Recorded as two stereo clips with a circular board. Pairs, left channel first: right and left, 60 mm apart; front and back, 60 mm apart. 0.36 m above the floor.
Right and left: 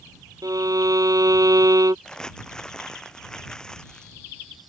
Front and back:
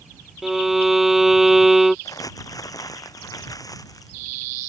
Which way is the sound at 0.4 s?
95° left.